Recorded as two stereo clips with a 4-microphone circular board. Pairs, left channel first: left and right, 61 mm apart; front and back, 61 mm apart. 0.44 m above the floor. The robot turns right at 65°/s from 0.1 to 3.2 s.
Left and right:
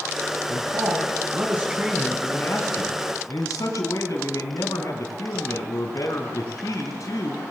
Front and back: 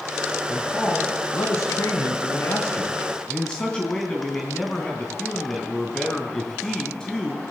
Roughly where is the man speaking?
Right.